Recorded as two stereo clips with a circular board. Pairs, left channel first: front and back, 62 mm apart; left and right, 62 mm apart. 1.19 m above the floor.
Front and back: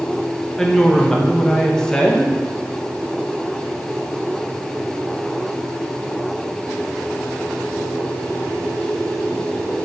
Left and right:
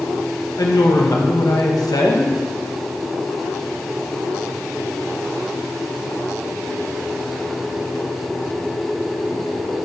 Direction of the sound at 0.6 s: 80° left.